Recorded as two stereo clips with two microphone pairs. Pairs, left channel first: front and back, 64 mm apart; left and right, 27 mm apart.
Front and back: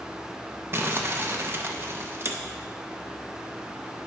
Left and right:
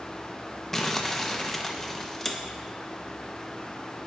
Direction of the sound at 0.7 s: 165° left.